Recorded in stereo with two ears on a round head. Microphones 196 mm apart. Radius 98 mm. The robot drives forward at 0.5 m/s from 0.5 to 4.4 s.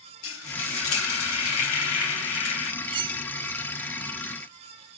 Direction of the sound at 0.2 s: 65° left (ahead or behind).